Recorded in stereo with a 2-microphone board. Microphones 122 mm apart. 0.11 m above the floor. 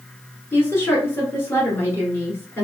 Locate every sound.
0.5 s a woman speaking: 20° left (ahead or behind), 1.6 m